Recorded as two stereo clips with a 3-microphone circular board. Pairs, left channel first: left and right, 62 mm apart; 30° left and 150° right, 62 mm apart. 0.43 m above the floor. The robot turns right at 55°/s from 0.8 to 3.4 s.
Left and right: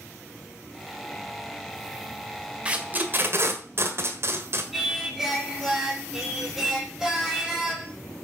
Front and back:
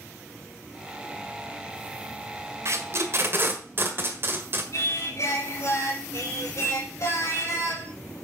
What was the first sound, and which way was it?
Tape being pulled, 155° right.